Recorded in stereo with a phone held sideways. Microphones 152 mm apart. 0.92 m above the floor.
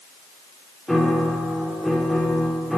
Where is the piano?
Centre (ahead or behind), 2.5 m.